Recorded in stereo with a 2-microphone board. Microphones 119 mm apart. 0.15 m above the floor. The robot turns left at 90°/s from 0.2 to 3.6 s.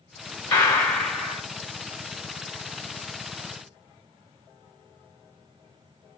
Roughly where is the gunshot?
Centre.